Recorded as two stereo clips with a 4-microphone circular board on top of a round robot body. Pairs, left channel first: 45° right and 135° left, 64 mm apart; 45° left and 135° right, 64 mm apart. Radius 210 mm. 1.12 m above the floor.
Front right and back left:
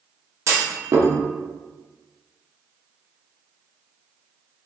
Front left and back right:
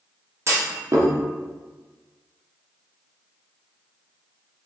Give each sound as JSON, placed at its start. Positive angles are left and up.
{"t": 0.5, "sound": "a clunk", "azimuth_deg": 180, "distance_m": 0.9}